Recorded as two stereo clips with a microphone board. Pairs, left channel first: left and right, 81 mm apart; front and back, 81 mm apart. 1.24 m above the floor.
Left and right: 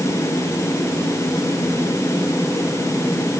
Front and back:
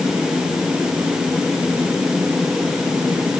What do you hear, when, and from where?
Only background noise.